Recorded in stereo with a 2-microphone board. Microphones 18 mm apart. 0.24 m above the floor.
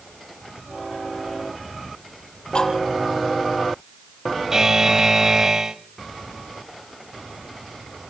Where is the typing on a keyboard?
I don't hear typing on a keyboard.